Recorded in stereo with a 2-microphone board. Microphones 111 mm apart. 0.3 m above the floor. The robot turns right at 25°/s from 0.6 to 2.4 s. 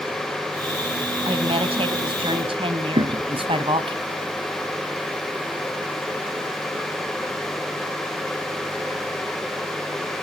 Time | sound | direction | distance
1.2 | a woman speaking | 55° right (ahead or behind) | 2.5 m
3.0 | a thud | 65° right (ahead or behind) | 2.5 m